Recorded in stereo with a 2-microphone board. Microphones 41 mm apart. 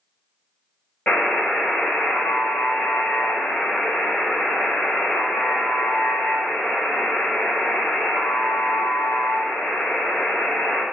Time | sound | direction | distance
1.1 | a buzzer | 40° left (ahead or behind) | 1.9 m